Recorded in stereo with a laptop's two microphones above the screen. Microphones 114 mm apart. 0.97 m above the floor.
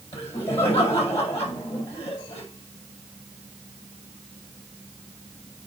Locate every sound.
0.1 s laughter: 60° left (ahead or behind), 5.5 m